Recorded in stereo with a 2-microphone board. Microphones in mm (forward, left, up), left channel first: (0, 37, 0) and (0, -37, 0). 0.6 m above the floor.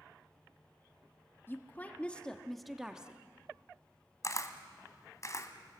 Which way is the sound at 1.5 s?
30° left (ahead or behind).